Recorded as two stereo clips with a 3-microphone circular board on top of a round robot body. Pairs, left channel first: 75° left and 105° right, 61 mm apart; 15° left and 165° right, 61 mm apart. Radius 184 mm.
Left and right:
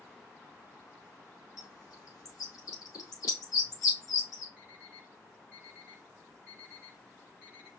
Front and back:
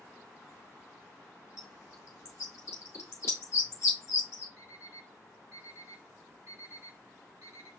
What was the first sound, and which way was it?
A bird, 50° left.